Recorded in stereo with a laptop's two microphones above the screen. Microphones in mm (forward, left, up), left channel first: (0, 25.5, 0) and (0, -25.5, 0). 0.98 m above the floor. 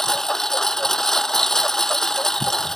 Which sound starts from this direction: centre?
A lawn mower, at 0.0 s.